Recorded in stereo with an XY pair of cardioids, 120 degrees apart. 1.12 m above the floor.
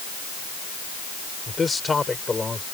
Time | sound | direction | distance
1.5 | a man speaking | 20° left | ?